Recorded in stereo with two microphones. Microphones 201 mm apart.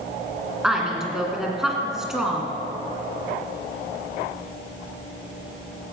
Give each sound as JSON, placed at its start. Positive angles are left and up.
{"t": 0.6, "sound": "a woman speaking", "side_deg": -5, "distance_m": 2.0}